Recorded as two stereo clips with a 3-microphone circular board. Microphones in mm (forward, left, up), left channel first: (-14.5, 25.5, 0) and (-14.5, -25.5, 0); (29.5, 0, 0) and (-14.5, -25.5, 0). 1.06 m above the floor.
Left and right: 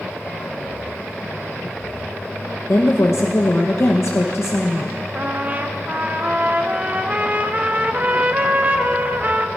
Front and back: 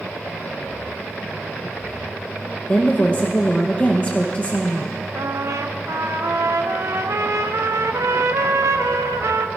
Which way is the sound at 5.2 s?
150° right.